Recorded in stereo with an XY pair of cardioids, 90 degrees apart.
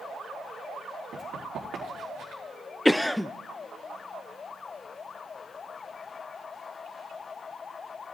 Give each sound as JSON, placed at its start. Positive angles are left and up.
{"t": 1.1, "sound": "running footsteps", "azimuth_deg": -65, "distance_m": 4.5}
{"t": 2.9, "sound": "a cough", "azimuth_deg": 15, "distance_m": 0.5}